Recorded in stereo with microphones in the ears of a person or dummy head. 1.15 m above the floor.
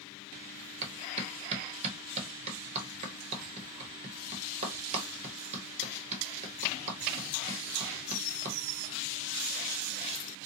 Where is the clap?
40° right (ahead or behind), 1.1 m.